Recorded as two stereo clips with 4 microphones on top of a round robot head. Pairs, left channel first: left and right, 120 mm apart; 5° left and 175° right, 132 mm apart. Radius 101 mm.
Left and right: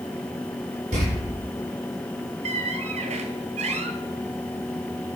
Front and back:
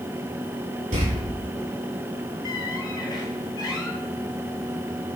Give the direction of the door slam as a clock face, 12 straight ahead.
4 o'clock.